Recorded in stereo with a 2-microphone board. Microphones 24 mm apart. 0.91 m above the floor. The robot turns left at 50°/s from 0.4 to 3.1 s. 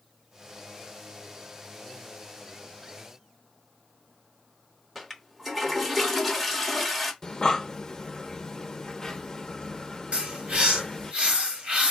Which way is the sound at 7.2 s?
30° left (ahead or behind).